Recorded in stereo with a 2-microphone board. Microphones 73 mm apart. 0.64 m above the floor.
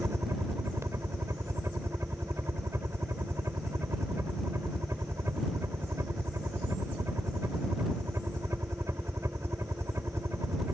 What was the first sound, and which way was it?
A helicopter, 40° right (ahead or behind).